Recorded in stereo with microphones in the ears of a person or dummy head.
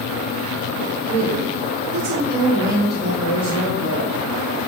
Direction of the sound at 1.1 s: 25° right (ahead or behind).